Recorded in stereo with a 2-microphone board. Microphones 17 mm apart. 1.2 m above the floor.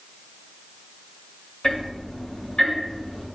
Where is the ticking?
80° left, 5.5 m.